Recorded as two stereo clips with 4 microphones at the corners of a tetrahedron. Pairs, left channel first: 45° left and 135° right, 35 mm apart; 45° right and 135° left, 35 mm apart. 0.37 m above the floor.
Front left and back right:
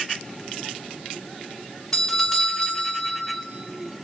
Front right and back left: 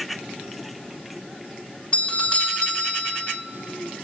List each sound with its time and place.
1.9 s a doorbell: 30° right, 2 m